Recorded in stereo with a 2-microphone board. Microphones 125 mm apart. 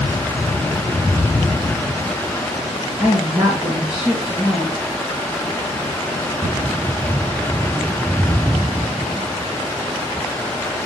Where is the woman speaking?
Centre (ahead or behind), 2 m.